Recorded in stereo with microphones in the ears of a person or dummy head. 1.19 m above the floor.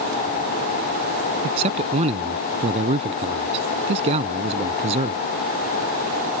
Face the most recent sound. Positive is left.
turn(degrees=-40)  # may be behind; listen again after turning